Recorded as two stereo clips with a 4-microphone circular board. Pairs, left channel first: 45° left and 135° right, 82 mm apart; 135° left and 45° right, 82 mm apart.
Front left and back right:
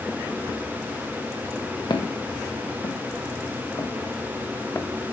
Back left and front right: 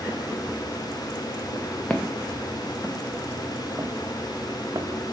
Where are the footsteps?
60° left, 1.6 m; by 4.9 s 15° right, 1.1 m.